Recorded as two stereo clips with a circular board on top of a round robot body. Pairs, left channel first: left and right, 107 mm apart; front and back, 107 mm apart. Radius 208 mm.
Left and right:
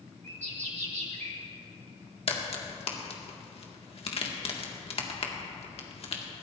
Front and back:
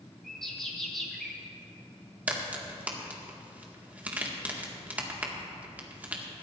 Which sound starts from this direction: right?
A bird, at 0.2 s.